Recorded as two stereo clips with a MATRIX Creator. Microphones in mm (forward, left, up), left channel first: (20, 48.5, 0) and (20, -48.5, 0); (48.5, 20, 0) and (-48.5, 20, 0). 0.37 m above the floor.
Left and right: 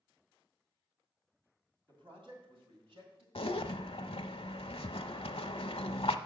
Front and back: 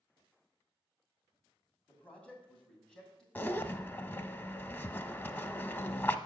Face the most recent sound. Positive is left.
turn(degrees=70)